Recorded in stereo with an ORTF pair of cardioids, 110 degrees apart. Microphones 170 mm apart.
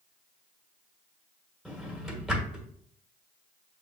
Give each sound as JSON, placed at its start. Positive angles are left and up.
{"t": 1.6, "sound": "a drawer", "azimuth_deg": 0, "distance_m": 1.3}